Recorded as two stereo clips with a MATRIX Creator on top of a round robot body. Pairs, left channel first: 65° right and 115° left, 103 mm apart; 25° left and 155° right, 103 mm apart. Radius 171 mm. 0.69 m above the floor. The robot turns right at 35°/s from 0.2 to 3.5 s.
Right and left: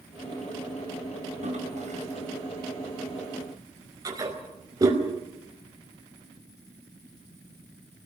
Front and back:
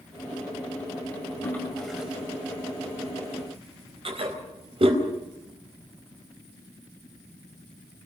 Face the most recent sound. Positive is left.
turn(degrees=170)